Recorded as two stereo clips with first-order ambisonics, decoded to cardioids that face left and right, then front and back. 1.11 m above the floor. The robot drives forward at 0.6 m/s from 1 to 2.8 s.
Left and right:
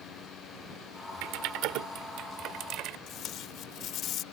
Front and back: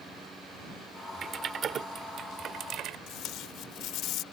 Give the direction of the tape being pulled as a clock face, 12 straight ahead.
11 o'clock.